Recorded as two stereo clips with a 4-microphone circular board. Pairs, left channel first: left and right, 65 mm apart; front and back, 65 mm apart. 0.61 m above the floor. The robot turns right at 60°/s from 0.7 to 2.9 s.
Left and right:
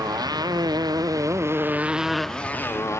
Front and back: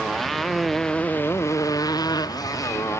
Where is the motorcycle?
90° right; by 3.0 s 40° left.